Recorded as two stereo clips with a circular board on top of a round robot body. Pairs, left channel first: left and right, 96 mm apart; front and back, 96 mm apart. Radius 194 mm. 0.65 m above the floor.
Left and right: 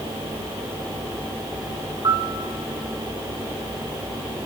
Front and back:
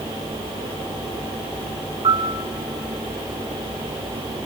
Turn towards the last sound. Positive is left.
turn(degrees=-140)